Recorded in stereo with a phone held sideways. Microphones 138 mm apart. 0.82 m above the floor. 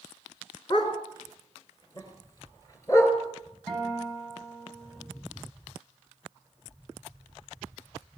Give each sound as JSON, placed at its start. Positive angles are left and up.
{"t": 0.7, "sound": "a dog barking", "side_deg": 35, "distance_m": 3.5}
{"t": 3.7, "sound": "a guitar", "side_deg": 5, "distance_m": 8.0}